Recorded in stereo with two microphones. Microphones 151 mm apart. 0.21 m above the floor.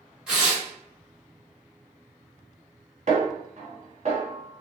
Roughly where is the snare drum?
Right.